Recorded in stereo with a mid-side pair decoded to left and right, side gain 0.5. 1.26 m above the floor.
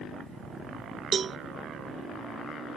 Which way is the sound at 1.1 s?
45° right.